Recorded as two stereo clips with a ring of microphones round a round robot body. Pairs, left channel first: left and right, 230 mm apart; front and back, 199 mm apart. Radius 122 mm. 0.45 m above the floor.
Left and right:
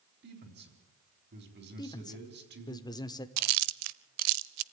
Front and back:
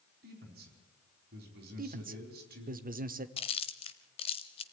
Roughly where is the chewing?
Right.